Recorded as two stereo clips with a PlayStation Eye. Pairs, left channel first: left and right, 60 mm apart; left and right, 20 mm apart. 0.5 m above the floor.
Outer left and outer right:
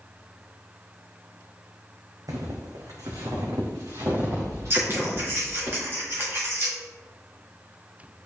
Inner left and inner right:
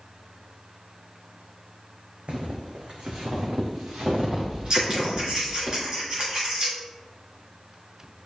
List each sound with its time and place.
2.3 s footsteps: 75° right (ahead or behind), 1.9 m; by 5.7 s 50° right (ahead or behind), 5 m
4.7 s scissors: 40° right (ahead or behind), 4 m